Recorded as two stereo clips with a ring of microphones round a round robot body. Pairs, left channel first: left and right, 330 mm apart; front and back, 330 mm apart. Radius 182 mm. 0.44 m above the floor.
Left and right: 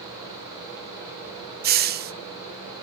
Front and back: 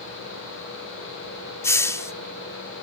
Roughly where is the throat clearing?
No throat clearing in this recording.